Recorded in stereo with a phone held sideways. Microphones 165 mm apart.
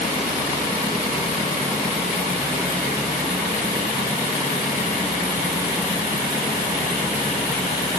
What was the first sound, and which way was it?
Only background noise.